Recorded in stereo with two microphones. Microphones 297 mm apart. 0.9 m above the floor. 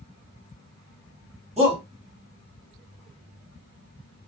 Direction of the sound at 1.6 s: 20° right (ahead or behind).